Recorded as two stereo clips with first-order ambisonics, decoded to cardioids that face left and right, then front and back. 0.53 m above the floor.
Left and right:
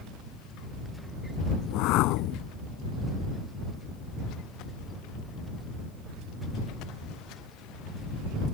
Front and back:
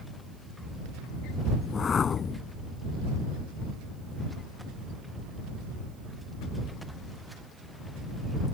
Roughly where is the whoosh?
Ahead left.